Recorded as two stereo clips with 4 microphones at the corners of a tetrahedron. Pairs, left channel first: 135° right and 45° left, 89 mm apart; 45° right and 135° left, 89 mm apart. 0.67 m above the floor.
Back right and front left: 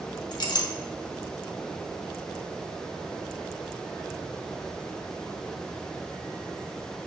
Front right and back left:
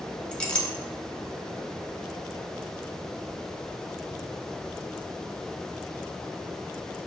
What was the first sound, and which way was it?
A clink, 120° right.